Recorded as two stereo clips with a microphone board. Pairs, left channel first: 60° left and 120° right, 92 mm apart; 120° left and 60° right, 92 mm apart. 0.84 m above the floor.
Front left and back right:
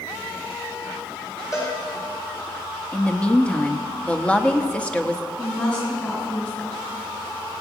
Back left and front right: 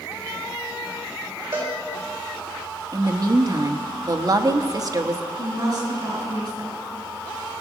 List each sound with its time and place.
1.5 s a cowbell: straight ahead, 5 m
2.9 s a woman speaking: 15° right, 1.0 m
5.4 s a woman speaking: 15° right, 5 m